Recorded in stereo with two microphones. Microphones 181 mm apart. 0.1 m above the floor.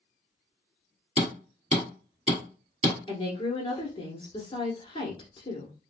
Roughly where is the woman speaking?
Left.